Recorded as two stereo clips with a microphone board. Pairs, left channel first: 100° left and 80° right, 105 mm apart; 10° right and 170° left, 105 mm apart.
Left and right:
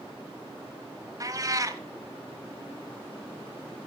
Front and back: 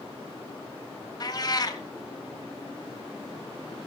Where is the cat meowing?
40° right, 1.1 m.